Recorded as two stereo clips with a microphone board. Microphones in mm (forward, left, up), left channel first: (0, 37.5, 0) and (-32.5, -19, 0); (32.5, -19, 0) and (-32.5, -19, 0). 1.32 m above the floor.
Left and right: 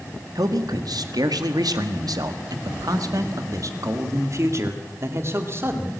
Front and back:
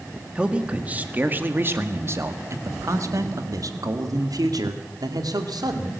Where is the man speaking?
105° right, 2.0 m; by 5.9 s 175° right, 3 m.